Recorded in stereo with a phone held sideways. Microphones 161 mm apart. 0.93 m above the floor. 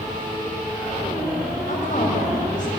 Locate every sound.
1.7 s a woman speaking: 55° left (ahead or behind), 5.5 m